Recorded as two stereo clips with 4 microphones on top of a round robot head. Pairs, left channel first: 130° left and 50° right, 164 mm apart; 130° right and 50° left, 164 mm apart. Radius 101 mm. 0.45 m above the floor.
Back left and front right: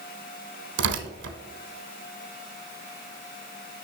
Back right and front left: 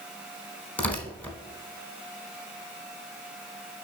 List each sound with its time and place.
0.8 s tearing paper: 45° right, 0.9 m